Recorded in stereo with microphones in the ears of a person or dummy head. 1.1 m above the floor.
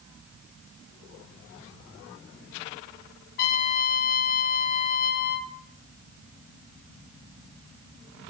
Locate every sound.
3.4 s a trumpet: 50° left (ahead or behind), 0.6 m